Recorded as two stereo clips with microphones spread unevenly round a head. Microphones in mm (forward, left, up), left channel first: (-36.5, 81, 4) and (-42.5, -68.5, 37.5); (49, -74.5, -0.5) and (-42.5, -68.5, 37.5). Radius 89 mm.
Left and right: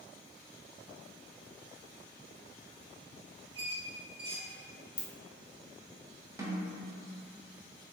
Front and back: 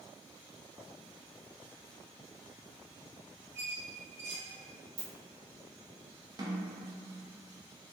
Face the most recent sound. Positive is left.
turn(degrees=-155)